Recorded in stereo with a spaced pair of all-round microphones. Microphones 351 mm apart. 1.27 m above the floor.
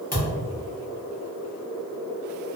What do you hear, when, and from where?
0.1 s a thud: 20° left (ahead or behind), 0.9 m